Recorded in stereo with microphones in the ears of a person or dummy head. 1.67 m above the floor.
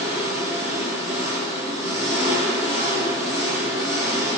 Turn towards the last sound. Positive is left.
turn(degrees=40)  # may be behind; listen again after turning